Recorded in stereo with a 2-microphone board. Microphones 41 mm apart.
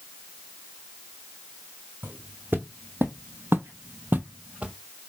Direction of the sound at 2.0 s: 50° right (ahead or behind).